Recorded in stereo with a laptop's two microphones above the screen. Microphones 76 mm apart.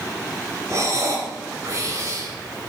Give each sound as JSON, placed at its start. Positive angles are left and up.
{"t": 0.7, "sound": "breathing", "side_deg": -40, "distance_m": 4.0}